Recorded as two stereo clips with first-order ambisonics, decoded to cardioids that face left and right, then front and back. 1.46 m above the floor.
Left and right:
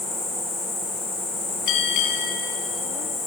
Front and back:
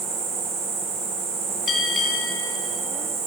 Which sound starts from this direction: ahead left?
A bell, at 1.7 s.